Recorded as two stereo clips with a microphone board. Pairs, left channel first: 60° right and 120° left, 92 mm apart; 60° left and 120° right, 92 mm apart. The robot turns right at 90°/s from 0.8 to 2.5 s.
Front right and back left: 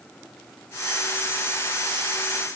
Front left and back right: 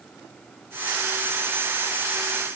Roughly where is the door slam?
I don't hear a door slam.